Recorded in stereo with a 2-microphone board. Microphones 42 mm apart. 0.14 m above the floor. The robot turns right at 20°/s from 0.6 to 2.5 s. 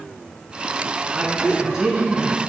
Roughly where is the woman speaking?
Centre.